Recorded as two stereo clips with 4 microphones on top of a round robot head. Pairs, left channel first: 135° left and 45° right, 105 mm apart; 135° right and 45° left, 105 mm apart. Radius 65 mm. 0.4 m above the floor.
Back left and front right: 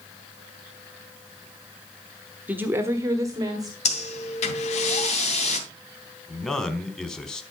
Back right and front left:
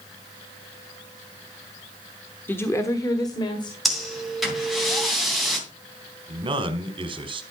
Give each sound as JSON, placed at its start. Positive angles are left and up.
{"t": 2.5, "sound": "a woman speaking", "azimuth_deg": -90, "distance_m": 1.1}
{"t": 3.9, "sound": "breathing", "azimuth_deg": 135, "distance_m": 2.5}
{"t": 6.3, "sound": "a man speaking", "azimuth_deg": 50, "distance_m": 1.6}